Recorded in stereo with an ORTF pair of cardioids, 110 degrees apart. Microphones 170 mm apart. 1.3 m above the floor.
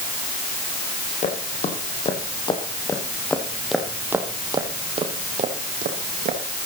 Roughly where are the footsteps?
Ahead left.